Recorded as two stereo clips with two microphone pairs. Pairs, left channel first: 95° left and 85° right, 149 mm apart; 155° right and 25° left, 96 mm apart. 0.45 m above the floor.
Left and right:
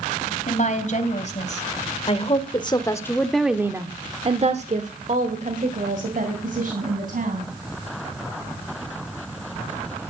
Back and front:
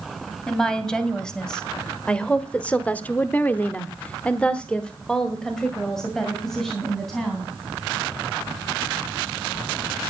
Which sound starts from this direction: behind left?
A woman speaking, at 0.5 s.